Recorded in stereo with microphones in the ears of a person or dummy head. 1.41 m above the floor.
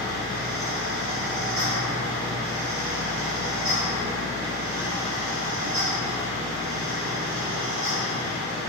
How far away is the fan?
About 1.3 m.